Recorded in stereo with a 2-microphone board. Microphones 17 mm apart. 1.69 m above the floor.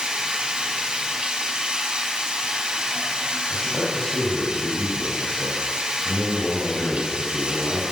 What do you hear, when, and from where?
0.0 s running water: 65° right (ahead or behind), 5 m
3.5 s a man speaking: 70° left (ahead or behind), 8.5 m